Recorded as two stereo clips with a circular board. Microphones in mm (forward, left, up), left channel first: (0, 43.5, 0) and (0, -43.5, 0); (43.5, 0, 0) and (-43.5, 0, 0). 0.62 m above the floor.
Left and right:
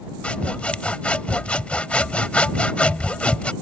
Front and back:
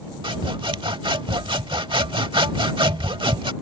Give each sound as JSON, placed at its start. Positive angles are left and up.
{"t": 0.2, "sound": "sawing", "azimuth_deg": 165}